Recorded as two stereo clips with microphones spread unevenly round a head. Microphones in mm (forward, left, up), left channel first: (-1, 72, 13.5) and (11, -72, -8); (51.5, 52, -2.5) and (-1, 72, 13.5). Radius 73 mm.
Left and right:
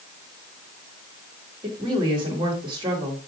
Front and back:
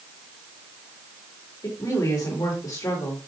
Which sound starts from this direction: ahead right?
A woman speaking, at 1.6 s.